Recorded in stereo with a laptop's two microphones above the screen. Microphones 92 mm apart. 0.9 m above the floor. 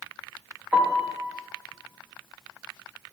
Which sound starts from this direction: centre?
A piano, at 0.7 s.